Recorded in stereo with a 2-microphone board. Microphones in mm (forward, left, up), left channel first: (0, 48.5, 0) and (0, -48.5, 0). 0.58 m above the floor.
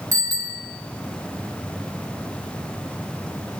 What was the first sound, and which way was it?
A bicycle bell, 35° right (ahead or behind).